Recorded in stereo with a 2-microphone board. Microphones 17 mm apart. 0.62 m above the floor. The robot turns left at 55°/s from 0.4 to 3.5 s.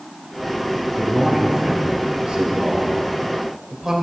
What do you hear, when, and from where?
0.9 s a man speaking: 10° right (ahead or behind), 2.5 m; by 3.9 s 25° right (ahead or behind), 2.5 m